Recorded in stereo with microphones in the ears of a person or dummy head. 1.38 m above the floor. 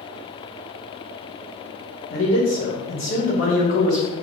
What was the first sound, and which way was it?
A man speaking, 50° left (ahead or behind).